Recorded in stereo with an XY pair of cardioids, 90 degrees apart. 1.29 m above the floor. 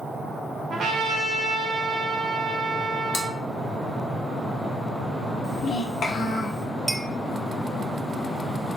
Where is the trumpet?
60° right, 1.1 m.